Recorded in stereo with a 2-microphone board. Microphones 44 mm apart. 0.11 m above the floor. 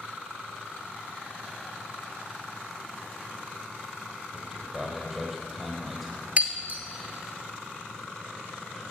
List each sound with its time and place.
4.3 s a man speaking: centre (ahead or behind), 3.5 m
6.4 s breaking glass: 35° right (ahead or behind), 1.3 m